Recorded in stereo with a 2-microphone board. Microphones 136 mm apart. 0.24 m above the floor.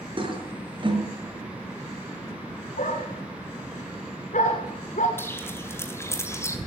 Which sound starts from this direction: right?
A toilet flushing, at 0.2 s.